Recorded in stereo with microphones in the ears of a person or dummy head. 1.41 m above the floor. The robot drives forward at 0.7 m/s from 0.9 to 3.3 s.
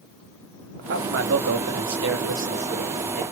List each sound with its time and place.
0.8 s a man speaking: 60° right (ahead or behind), 1.2 m; by 3.2 s 45° right (ahead or behind), 1.5 m